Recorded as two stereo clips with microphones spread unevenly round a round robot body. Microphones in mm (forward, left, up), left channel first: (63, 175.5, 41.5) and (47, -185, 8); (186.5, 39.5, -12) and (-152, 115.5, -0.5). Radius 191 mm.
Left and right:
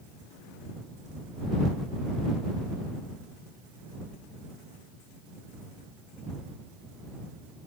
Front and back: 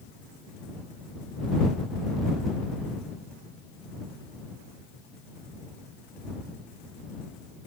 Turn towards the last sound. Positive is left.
No sound to turn to.